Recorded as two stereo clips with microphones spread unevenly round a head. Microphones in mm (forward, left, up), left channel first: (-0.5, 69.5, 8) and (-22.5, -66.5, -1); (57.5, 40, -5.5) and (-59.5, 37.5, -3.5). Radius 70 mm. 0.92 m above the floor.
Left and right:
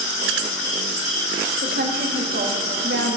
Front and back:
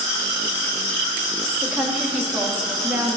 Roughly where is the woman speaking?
Right.